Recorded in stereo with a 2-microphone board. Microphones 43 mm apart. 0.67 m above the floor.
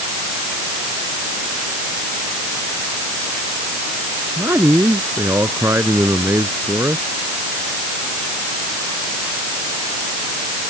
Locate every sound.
4.4 s a man speaking: 85° right